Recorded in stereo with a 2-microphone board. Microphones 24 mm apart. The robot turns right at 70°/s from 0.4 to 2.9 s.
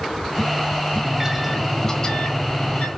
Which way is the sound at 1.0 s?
30° right.